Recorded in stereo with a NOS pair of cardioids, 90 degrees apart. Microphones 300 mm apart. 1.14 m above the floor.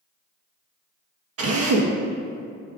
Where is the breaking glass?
I don't hear breaking glass.